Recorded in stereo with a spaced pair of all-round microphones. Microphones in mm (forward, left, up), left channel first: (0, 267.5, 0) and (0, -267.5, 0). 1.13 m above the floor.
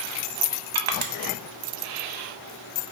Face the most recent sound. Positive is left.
turn(degrees=-60)  # may be behind; listen again after turning